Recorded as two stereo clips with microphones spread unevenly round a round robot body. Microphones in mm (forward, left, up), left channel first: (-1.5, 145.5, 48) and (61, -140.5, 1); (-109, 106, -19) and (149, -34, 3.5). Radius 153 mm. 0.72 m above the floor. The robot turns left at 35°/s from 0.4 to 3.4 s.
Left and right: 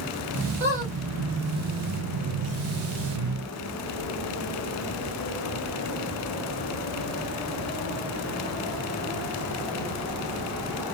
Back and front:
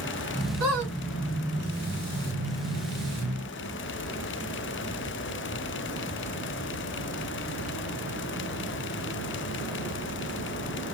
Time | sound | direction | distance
0.6 | a squeak | 10° left | 1.7 m